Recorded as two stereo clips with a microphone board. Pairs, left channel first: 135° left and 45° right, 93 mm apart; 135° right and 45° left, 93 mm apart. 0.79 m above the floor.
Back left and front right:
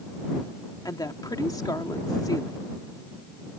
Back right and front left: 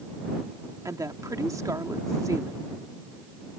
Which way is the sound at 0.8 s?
95° left.